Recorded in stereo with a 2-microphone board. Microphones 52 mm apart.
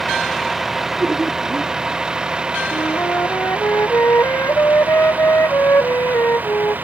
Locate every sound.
0.0 s a vehicle: 5° right (ahead or behind); by 6.8 s 35° right (ahead or behind)
1.0 s laughter: 20° right (ahead or behind)
2.7 s a flute: 60° left (ahead or behind)